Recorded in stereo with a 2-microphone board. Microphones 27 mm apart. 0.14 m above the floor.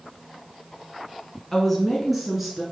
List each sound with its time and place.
1.5 s a woman speaking: 10° left (ahead or behind), 1.2 m; by 2.6 s 10° right (ahead or behind), 1.7 m